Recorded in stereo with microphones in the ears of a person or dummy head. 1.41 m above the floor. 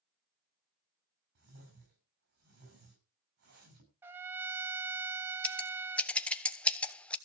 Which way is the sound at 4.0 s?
15° right (ahead or behind).